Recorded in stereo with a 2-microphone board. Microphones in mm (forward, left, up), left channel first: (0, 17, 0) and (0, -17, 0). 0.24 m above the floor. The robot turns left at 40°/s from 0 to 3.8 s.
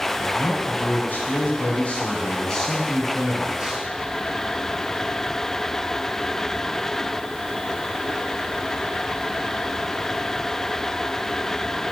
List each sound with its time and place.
0.2 s a man speaking: 115° left, 2 m; by 3.9 s 30° right, 2 m